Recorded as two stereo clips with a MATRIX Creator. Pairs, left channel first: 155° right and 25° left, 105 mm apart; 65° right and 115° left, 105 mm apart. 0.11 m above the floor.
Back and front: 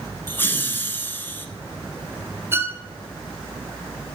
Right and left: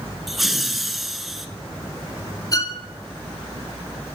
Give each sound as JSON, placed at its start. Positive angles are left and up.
{"t": 0.3, "sound": "laughter", "azimuth_deg": -160, "distance_m": 1.1}
{"t": 2.5, "sound": "a violin", "azimuth_deg": -35, "distance_m": 1.0}